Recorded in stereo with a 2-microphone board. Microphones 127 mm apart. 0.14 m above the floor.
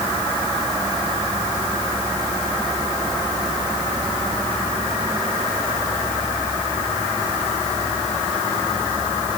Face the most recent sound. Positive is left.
No sound to turn to.